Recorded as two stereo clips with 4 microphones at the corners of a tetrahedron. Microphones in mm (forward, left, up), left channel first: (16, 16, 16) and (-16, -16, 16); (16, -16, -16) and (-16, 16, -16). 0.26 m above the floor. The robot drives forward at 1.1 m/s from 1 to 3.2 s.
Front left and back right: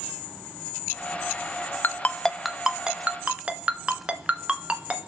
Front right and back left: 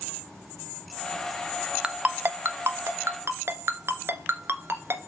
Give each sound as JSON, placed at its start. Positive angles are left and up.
{"t": 1.8, "sound": "a ringtone", "azimuth_deg": 65, "distance_m": 0.6}